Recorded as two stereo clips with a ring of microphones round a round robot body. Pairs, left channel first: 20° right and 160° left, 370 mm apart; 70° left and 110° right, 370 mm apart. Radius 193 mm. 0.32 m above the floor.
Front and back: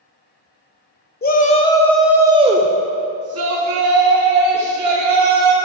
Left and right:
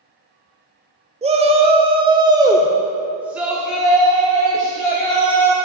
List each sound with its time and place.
1.2 s a shout: 55° right, 1.1 m; by 5.5 s 155° left, 2 m